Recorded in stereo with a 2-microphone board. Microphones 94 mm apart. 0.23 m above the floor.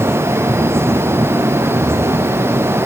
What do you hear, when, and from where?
Only background noise.